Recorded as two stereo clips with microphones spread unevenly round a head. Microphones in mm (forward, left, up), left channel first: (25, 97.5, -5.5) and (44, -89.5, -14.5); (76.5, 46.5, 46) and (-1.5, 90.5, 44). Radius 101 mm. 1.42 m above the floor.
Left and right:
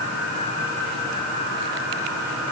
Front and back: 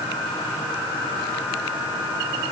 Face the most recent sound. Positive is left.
No sound to turn to.